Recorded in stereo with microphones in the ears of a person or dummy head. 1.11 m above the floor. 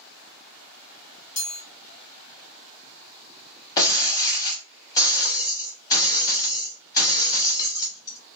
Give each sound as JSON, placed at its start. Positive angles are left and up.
{"t": 1.4, "sound": "a chime", "side_deg": 35, "distance_m": 1.0}
{"t": 3.8, "sound": "breaking glass", "side_deg": 15, "distance_m": 0.9}